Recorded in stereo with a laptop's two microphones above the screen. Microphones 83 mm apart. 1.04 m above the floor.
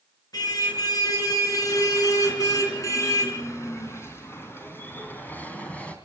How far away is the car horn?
About 6 m.